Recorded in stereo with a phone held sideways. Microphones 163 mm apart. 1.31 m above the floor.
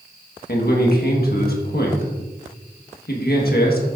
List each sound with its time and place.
0.5 s a man speaking: 70° left (ahead or behind), 1.4 m